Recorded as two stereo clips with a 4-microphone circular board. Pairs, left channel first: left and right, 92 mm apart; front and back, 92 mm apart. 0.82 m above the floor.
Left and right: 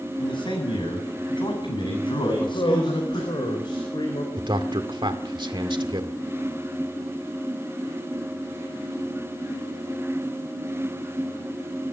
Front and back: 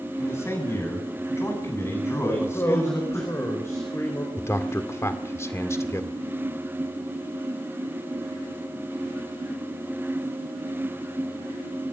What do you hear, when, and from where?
0.2 s a man speaking: 60° left, 7.5 m
2.3 s a man speaking: 60° left, 4 m
4.4 s a man speaking: 60° right, 1.9 m